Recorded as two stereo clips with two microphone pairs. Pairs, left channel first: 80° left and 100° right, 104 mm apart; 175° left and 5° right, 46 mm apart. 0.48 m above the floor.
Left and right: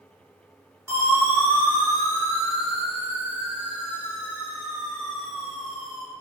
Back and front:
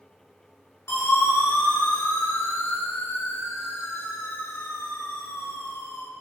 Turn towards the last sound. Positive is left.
turn(degrees=165)